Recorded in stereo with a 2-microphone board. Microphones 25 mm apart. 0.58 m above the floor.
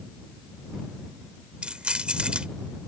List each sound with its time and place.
1.6 s keys jangling: 45° right (ahead or behind)